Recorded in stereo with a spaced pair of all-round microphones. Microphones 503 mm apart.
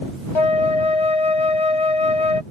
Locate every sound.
0.3 s a flute: 65° left (ahead or behind)